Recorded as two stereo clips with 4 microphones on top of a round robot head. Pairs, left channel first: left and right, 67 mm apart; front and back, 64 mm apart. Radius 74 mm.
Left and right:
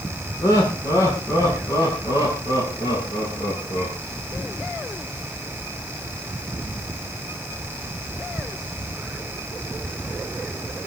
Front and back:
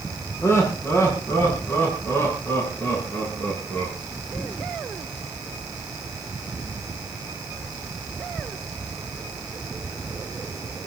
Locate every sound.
0.4 s laughter: 45° left, 7.5 m; by 3.9 s 55° left, 10 m